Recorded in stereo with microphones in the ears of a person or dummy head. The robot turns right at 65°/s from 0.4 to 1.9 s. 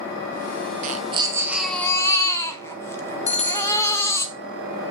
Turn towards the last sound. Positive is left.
turn(degrees=30)  # may be behind; listen again after turning